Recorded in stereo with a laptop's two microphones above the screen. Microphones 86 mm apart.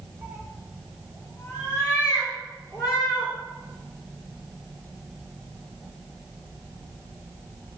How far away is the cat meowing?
About 1.1 m.